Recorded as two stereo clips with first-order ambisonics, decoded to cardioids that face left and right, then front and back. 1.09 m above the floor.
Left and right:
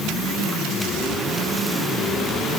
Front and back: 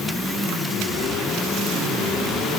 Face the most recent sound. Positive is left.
No sound to turn to.